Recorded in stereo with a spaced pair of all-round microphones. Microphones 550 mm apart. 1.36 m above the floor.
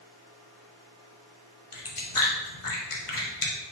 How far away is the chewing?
About 0.9 m.